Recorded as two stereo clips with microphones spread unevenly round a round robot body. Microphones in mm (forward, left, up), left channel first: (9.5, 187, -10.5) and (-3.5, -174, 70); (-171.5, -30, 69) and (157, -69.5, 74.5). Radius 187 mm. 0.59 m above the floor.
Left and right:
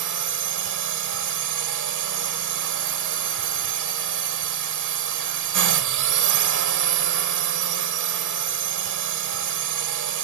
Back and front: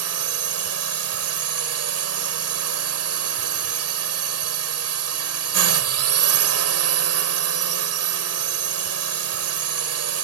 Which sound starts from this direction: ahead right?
A drone, at 0.0 s.